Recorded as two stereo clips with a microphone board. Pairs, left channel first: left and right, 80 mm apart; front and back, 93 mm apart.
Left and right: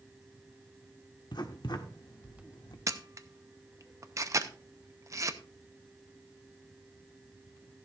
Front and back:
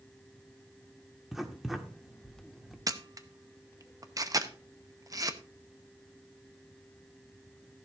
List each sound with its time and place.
1.3 s writing: 95° left, 1.3 m
2.9 s a camera shutter: 135° right, 0.8 m